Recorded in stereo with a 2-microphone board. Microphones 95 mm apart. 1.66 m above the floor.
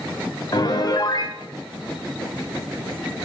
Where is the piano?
45° left (ahead or behind), 0.6 m.